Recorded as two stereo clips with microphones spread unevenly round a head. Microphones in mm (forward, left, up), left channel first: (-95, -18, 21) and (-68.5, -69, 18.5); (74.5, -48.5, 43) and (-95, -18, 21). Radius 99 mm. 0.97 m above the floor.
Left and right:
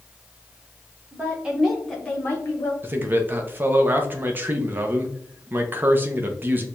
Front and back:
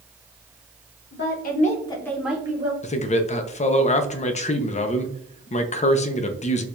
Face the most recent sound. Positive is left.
turn(degrees=-45)